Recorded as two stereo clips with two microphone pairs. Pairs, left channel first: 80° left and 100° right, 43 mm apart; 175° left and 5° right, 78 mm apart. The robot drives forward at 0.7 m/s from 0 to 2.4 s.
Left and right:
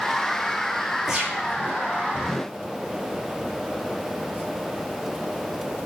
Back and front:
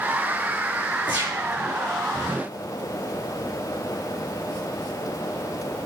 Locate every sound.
1.1 s a gunshot: 175° left, 3 m